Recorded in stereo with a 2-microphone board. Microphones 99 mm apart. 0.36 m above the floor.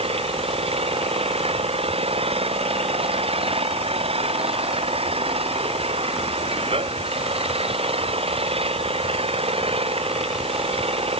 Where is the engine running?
85° right.